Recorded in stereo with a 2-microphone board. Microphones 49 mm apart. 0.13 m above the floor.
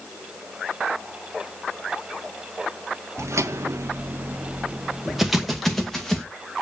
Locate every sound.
3.2 s footsteps: 80° right, 0.7 m; by 6.3 s 10° left (ahead or behind), 1.4 m